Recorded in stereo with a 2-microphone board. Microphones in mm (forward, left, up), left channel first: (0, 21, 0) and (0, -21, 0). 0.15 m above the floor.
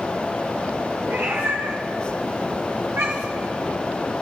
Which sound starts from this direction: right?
A cat meowing, at 1.1 s.